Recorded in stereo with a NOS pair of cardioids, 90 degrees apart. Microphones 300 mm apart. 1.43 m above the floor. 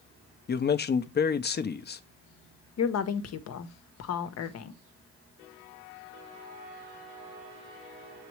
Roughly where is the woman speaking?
Ahead left.